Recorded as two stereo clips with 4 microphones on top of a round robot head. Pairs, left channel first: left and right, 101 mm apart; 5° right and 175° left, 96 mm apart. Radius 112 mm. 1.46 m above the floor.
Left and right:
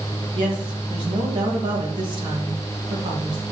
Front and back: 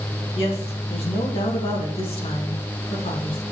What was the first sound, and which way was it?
A woman speaking, 40° right.